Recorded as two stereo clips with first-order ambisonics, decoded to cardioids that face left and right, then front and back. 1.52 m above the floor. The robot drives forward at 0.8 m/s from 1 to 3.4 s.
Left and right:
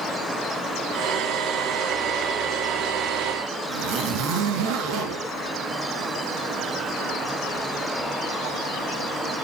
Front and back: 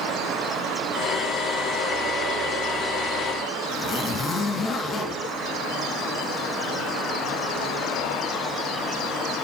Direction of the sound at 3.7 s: 65° right.